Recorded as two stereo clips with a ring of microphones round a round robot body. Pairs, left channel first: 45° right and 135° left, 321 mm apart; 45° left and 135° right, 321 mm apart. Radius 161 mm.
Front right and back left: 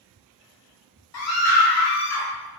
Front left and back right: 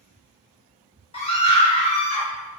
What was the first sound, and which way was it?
A scream, 20° right.